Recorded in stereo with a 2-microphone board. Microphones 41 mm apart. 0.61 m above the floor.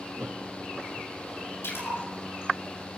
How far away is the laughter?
About 0.9 m.